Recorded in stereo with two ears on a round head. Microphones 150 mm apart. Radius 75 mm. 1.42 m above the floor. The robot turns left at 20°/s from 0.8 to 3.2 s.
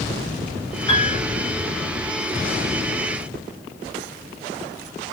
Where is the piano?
35° left (ahead or behind), 0.7 m.